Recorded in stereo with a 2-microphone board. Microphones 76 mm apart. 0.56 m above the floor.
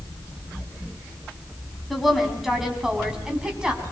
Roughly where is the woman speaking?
Centre.